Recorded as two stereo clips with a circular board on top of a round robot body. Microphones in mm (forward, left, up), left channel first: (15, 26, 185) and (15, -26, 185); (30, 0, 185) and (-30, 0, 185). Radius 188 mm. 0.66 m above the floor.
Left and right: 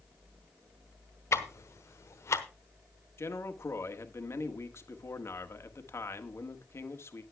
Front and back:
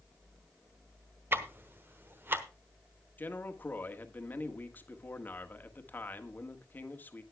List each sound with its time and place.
1.3 s ticking: 125° left, 1.1 m
3.2 s a man speaking: 60° left, 1.6 m